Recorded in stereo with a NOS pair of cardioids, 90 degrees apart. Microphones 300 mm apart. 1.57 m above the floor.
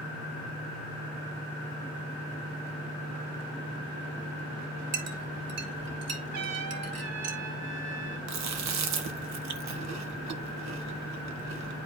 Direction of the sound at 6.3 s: 65° right.